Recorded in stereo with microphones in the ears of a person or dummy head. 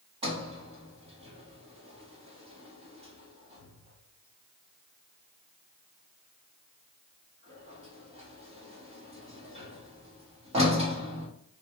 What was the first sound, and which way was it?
A sliding door, 20° right (ahead or behind).